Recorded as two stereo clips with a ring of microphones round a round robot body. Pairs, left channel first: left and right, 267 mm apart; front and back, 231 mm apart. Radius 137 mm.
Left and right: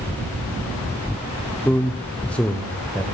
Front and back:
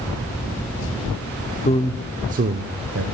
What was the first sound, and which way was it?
A man speaking, 10° left.